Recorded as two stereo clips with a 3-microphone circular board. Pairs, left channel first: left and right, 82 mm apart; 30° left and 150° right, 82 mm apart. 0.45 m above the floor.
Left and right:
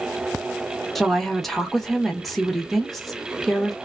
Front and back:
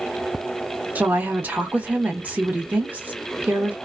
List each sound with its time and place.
0.9 s a woman speaking: 175° left, 0.8 m